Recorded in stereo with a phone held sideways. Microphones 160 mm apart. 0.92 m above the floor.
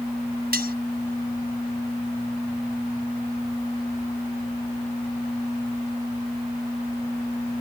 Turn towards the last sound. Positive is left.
turn(degrees=-70)  # may be behind; listen again after turning